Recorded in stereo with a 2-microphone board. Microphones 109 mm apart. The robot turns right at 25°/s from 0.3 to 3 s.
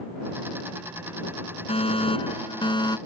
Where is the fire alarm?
100° left; by 3.0 s 135° left.